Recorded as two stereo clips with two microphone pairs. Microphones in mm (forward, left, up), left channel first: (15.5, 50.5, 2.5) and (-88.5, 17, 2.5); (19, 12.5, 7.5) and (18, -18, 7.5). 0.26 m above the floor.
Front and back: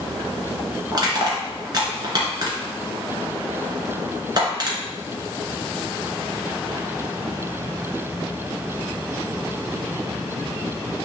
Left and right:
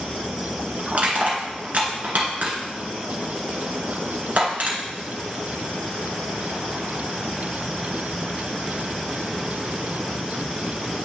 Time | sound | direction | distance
0.9 | crushing | 120° right | 1.8 m